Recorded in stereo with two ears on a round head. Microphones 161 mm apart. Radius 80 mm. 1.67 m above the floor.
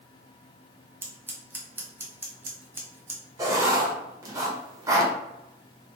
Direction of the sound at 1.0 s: 10° right (ahead or behind).